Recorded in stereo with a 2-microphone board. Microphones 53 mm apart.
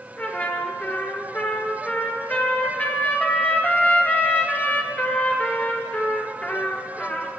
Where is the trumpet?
35° left (ahead or behind), 2.0 m.